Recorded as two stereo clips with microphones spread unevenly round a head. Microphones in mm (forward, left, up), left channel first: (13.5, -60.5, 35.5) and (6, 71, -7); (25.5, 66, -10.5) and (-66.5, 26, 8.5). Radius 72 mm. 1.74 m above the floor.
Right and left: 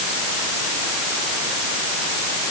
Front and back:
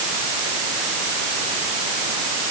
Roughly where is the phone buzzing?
I don't hear a phone buzzing.